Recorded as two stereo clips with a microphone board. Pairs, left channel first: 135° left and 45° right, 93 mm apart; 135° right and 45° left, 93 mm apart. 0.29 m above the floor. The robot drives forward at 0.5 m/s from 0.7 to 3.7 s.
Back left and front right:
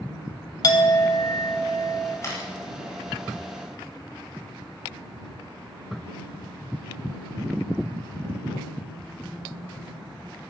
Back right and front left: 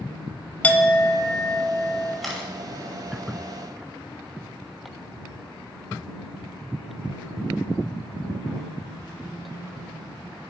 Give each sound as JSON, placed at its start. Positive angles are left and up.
{"t": 0.6, "sound": "a clink", "azimuth_deg": 160, "distance_m": 0.6}
{"t": 2.2, "sound": "a camera shutter", "azimuth_deg": 135, "distance_m": 1.5}